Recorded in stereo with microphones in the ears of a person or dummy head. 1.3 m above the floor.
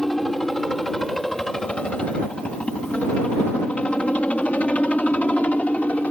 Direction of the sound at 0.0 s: Centre (ahead or behind).